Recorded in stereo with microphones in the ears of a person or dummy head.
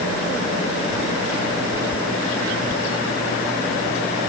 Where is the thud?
I don't hear a thud.